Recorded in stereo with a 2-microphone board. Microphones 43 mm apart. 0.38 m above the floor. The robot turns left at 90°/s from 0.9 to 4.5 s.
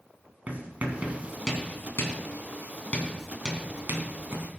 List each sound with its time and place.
0.5 s writing: 35° right (ahead or behind), 3 m; by 4.5 s 65° right (ahead or behind), 3 m